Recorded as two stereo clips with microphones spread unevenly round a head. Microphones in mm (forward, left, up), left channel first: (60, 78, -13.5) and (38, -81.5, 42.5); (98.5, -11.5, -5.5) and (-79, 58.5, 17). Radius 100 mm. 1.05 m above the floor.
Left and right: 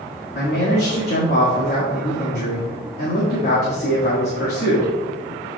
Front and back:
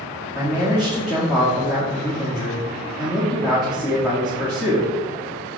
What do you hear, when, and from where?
0.3 s a man speaking: 65° left, 2 m